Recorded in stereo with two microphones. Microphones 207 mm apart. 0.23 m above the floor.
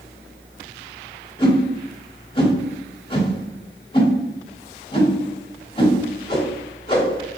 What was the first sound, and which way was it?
A whoosh, 25° left (ahead or behind).